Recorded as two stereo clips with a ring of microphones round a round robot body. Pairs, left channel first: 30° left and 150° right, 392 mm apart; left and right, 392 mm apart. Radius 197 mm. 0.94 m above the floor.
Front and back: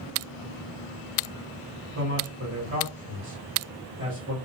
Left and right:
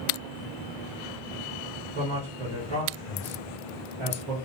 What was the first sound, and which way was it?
A man speaking, 90° right.